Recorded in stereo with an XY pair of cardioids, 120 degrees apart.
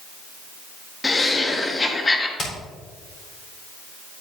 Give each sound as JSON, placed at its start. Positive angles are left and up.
{"t": 1.0, "sound": "laughter", "azimuth_deg": 20, "distance_m": 1.4}
{"t": 2.4, "sound": "hammering", "azimuth_deg": 40, "distance_m": 4.0}